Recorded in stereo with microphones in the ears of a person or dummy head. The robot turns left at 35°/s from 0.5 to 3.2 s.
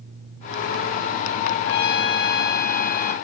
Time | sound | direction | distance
1.6 | a trumpet | 100° left | 0.5 m